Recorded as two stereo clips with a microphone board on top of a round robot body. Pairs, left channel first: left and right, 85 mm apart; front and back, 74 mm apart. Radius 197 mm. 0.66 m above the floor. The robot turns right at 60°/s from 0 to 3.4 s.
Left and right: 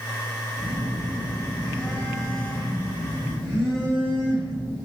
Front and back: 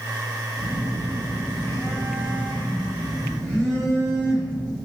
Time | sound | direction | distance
0.6 | a phone buzzing | 95° right | 2 m